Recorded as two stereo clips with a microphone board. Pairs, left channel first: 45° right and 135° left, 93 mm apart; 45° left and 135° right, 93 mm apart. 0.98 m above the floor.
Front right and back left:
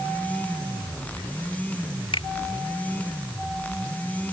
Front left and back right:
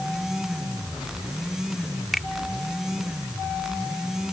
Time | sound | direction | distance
2.1 | a finger snap | 45° right | ?